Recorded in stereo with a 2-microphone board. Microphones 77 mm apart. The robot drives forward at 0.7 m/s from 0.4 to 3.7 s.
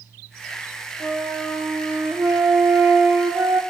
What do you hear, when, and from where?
1.0 s a flute: 20° right (ahead or behind), 4 m; by 3.6 s 30° right (ahead or behind), 2.5 m